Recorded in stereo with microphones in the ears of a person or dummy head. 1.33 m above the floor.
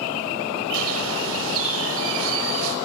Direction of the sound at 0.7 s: 85° right.